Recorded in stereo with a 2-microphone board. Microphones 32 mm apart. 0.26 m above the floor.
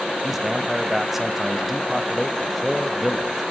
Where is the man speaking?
5° right (ahead or behind), 1.0 m.